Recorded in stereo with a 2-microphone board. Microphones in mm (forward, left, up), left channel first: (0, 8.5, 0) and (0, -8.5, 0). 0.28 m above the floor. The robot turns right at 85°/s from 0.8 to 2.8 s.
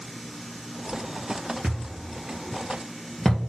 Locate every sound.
1.6 s a thud: 75° right (ahead or behind), 3 m; by 3.4 s 25° left (ahead or behind), 3 m